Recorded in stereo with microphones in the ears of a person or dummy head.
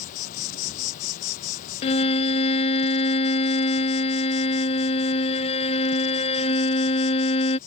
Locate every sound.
0.0 s an insect: 45° left (ahead or behind)
1.8 s a violin: 30° left (ahead or behind)